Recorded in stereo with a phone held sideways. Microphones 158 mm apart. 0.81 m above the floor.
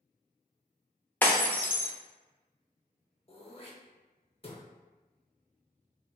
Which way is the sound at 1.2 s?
10° left (ahead or behind).